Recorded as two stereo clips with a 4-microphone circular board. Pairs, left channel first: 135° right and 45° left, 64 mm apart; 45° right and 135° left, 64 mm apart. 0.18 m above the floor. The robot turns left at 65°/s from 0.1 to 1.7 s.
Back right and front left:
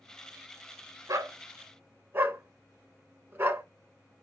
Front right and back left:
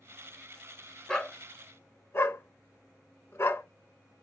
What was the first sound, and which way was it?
A dog barking, 35° left.